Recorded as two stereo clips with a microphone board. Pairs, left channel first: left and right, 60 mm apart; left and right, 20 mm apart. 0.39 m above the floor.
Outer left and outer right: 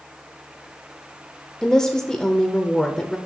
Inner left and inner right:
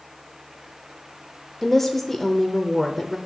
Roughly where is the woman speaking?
Centre.